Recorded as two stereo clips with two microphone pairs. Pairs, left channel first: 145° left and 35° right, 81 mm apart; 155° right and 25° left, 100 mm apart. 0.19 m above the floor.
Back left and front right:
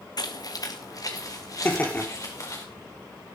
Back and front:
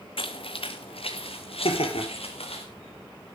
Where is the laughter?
145° right, 4.5 m.